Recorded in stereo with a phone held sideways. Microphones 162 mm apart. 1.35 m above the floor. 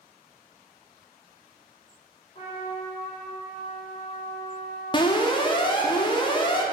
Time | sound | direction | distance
2.4 | a trumpet | 40° left (ahead or behind) | 1.3 m
4.9 | an alarm | 30° left (ahead or behind) | 0.5 m